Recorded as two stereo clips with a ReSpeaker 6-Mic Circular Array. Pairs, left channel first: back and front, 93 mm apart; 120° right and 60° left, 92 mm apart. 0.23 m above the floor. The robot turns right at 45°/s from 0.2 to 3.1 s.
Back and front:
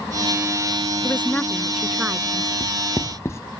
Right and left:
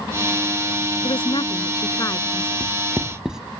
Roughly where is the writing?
Behind left.